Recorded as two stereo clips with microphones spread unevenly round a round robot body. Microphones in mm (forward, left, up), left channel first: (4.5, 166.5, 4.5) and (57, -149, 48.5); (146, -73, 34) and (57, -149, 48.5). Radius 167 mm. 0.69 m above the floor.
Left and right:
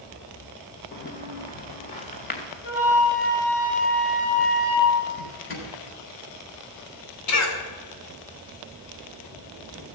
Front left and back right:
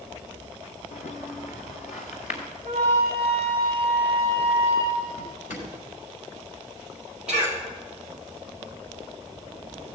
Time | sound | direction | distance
0.9 | footsteps | 35° left | 2.5 m
2.6 | a flute | 150° left | 6.5 m
5.2 | a drawer | 50° left | 3.5 m
7.3 | a cough | 135° left | 2.5 m